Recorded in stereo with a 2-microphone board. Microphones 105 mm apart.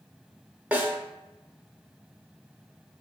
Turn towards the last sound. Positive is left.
turn(degrees=-15)  # may be behind; listen again after turning